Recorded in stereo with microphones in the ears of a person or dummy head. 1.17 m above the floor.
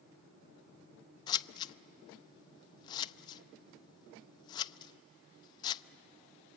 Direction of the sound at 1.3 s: 20° left (ahead or behind).